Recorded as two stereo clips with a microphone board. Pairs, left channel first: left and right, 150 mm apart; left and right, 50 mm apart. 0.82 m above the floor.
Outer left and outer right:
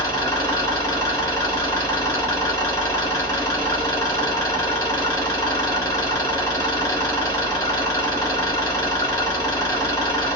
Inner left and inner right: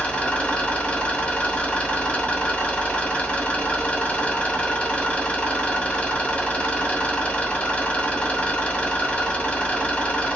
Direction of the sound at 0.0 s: 25° left (ahead or behind).